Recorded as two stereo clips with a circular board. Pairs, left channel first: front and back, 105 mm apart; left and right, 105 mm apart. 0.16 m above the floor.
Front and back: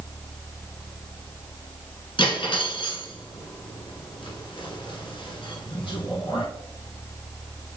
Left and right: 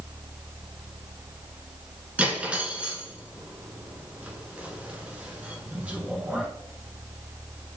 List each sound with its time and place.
2.2 s cutlery clinking: 15° right, 1.0 m